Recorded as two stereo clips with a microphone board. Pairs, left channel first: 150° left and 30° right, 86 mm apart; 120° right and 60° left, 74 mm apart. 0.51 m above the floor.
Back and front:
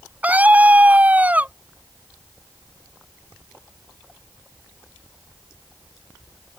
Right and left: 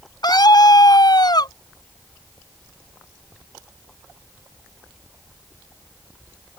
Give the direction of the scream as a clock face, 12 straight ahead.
3 o'clock.